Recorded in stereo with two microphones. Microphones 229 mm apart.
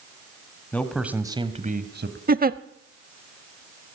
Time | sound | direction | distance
0.7 | a man speaking | 5° left (ahead or behind) | 2 m
2.3 | a giggle | 40° right (ahead or behind) | 0.7 m